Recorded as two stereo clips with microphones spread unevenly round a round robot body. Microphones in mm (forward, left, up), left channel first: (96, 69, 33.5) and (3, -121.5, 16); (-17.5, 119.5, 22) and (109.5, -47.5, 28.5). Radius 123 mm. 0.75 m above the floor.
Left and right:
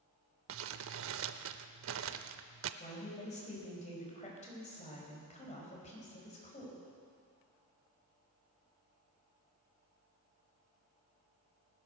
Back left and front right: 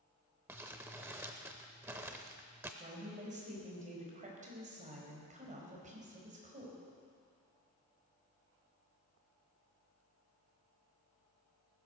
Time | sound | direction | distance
0.5 | crumpling | 130° right | 0.5 m
2.8 | a woman speaking | 5° left | 5 m